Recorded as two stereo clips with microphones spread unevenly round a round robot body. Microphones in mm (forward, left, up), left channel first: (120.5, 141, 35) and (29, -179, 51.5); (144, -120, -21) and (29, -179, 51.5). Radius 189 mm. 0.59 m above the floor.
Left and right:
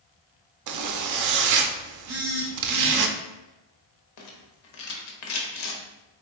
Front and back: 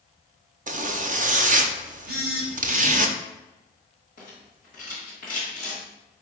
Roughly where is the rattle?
Left.